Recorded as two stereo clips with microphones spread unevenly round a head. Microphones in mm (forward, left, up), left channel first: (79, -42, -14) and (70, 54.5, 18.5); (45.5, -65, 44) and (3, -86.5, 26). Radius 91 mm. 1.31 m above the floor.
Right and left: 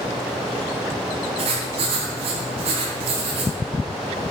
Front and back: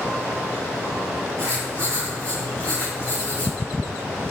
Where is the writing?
130° left, 3.5 m.